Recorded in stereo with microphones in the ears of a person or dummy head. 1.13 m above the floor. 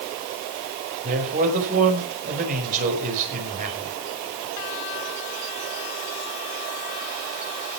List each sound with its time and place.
1.0 s a man speaking: 45° right (ahead or behind), 6 m